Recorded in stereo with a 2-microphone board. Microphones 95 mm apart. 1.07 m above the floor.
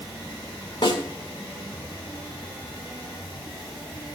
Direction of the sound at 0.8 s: 55° left (ahead or behind).